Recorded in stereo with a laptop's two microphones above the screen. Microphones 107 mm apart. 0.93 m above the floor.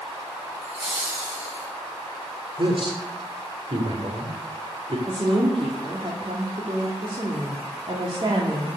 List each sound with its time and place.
0.6 s laughter: 10° right (ahead or behind), 7 m; by 1.7 s 20° right (ahead or behind), 7 m
2.6 s a man speaking: 55° right (ahead or behind), 3.5 m
5.1 s a woman speaking: 50° right (ahead or behind), 2.5 m